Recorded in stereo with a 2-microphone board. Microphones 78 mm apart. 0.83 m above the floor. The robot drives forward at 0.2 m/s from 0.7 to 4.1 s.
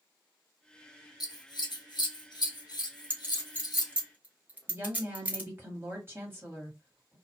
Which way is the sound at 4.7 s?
30° right (ahead or behind).